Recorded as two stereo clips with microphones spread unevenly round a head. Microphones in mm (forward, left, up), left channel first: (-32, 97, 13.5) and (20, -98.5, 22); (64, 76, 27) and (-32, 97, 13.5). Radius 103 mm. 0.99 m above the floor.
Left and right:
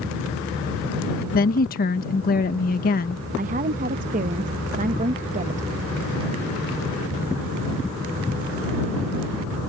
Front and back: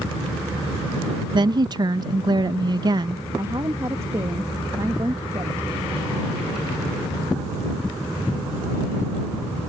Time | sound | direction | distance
1.3 | a woman speaking | 140° left | ?
3.4 | a woman speaking | 130° right | ?